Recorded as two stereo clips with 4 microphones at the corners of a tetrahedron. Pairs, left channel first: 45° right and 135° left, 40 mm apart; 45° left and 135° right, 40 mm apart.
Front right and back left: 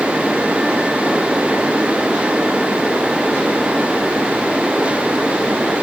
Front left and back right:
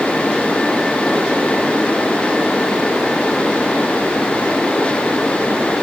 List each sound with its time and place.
Only background noise.